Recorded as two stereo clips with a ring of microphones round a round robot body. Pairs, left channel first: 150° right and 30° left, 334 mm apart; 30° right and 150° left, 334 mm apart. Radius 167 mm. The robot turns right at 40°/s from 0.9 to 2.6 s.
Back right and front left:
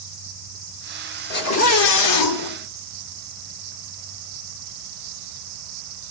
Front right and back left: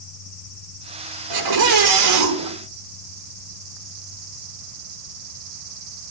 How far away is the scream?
About 3 m.